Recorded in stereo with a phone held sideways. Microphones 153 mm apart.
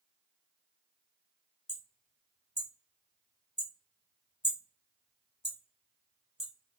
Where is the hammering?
40° left (ahead or behind), 1.2 m.